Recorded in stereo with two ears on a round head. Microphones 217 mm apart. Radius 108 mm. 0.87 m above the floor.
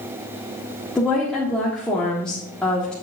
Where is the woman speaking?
5° left (ahead or behind), 1.5 m.